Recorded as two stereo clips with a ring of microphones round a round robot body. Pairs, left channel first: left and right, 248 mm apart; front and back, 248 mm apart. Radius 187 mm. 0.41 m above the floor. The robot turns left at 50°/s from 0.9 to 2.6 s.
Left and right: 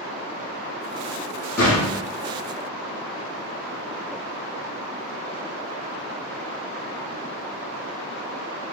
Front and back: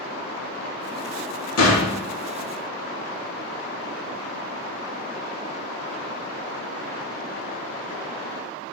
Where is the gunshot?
25° left, 3.5 m; by 2.0 s 5° left, 3.5 m.